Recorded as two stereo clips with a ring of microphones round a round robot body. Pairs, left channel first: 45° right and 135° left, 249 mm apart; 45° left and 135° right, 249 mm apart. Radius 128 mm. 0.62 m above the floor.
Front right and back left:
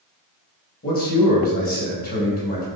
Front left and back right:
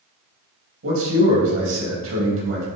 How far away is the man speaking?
About 4 m.